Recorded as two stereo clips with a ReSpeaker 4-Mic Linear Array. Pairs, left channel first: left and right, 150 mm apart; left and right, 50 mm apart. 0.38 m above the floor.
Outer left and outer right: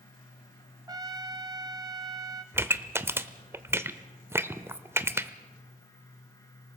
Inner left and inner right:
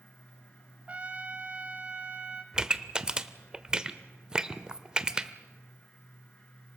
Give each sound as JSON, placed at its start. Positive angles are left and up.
{"t": 0.9, "sound": "a trumpet", "side_deg": -25, "distance_m": 0.9}
{"t": 2.5, "sound": "a pop", "side_deg": -15, "distance_m": 0.8}